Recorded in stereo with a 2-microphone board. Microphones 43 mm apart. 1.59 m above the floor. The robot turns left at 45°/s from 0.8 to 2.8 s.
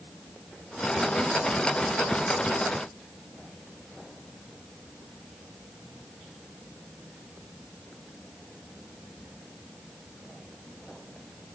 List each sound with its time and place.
Only background noise.